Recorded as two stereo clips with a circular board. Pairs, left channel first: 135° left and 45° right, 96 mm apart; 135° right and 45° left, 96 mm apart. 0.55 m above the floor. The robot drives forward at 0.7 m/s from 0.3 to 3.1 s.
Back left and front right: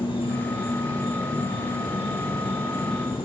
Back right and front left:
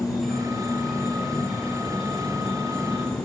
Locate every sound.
0.0 s an insect: 135° left, 7.5 m; by 3.2 s 140° left, 9 m